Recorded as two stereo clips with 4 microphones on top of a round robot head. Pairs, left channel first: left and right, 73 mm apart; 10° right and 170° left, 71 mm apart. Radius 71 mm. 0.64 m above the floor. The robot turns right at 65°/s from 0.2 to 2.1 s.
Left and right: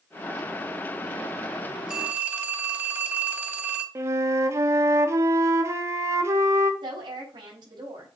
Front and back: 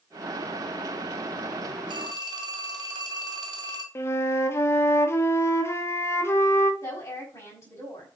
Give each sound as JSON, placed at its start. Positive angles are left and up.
{"t": 1.9, "sound": "a phone ringing", "azimuth_deg": -170, "distance_m": 2.0}
{"t": 4.0, "sound": "a flute", "azimuth_deg": -50, "distance_m": 1.4}
{"t": 6.8, "sound": "a woman speaking", "azimuth_deg": -70, "distance_m": 5.0}